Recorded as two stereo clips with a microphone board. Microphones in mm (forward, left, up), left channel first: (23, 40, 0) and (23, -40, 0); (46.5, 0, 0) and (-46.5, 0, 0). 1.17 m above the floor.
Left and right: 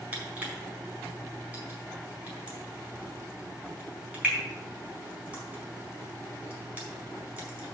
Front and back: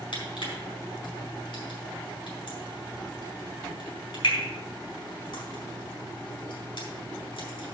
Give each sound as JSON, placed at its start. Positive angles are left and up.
{"t": 0.1, "sound": "crushing", "azimuth_deg": -20, "distance_m": 4.5}